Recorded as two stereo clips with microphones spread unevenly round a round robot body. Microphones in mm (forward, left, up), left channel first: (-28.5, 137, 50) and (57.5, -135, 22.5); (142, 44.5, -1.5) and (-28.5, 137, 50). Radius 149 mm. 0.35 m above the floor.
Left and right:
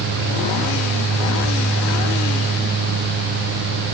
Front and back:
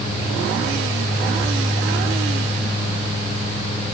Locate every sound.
Only background noise.